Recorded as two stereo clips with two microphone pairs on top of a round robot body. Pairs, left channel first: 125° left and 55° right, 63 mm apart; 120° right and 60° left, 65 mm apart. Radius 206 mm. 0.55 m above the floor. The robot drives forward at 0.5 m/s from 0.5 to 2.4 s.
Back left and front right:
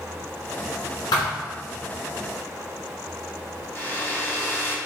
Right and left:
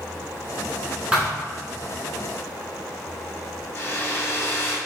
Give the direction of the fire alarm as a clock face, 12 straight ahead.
I don't hear a fire alarm.